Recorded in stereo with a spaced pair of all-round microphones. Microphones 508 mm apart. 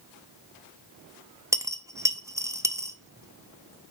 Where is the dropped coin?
5° right (ahead or behind), 0.5 m.